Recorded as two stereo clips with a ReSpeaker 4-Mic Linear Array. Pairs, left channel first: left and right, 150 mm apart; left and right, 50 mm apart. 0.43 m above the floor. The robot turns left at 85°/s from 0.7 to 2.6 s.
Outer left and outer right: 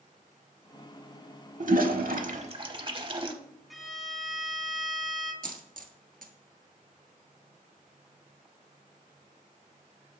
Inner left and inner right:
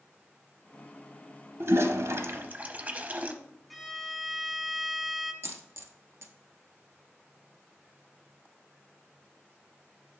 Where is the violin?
Centre (ahead or behind), 1.2 m.